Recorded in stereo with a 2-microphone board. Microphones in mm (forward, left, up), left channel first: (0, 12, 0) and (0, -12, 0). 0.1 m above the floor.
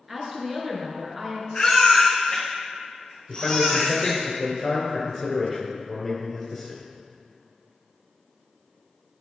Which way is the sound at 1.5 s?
40° left (ahead or behind).